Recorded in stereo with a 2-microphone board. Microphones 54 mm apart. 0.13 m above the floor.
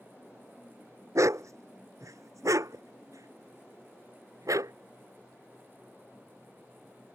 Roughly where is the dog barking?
Right.